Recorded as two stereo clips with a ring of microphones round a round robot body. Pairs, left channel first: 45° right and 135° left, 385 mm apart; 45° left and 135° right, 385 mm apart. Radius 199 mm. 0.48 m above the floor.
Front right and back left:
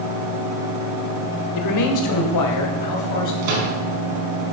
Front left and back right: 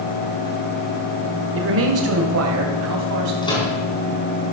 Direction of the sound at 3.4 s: 125° left.